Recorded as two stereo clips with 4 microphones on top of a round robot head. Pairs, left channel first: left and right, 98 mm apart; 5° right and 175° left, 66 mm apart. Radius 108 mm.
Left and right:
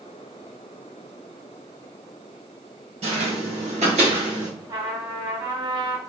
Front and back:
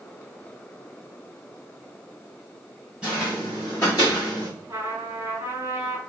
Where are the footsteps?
105° right, 1.7 m; by 4.5 s 25° right, 1.2 m.